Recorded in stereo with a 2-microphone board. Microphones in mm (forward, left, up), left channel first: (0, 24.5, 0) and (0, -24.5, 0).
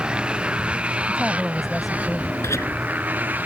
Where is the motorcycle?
20° right (ahead or behind); by 3.5 s 35° right (ahead or behind).